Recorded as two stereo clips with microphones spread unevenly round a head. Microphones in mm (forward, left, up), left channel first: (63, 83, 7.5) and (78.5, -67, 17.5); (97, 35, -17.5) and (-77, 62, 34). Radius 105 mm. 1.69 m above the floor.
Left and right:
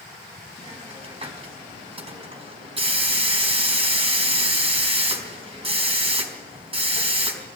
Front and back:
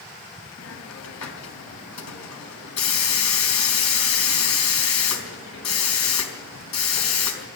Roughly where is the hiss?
Ahead right.